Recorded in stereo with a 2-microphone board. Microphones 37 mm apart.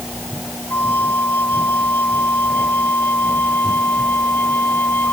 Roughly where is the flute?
Left.